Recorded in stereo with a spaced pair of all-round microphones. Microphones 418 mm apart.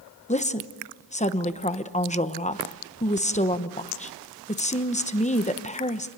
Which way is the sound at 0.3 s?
15° left (ahead or behind).